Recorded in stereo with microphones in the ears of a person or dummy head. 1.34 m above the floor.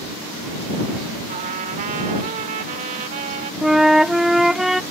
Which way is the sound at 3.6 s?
Centre (ahead or behind).